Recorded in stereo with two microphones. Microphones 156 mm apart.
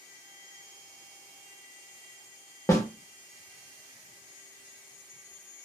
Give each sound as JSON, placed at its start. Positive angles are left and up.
{"t": 2.7, "sound": "a snare drum", "side_deg": 20, "distance_m": 0.7}